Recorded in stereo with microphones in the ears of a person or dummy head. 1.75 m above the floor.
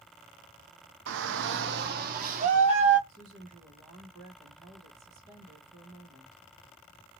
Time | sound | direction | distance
1.1 | a shout | 80° right | 0.7 m
3.1 | a woman speaking | 25° right (ahead or behind) | 0.9 m